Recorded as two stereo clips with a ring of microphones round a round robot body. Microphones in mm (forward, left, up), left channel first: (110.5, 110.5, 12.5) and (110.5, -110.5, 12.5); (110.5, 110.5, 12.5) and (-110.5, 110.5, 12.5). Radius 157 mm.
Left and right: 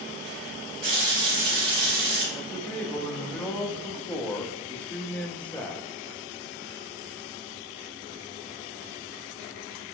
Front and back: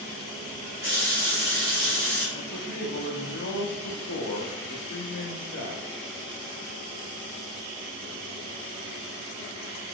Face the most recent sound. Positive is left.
turn(degrees=5)